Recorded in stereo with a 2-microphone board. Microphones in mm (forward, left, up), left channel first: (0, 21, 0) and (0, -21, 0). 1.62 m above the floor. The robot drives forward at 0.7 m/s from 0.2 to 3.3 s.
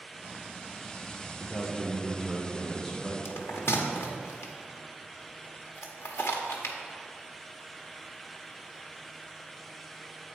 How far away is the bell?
About 1.0 m.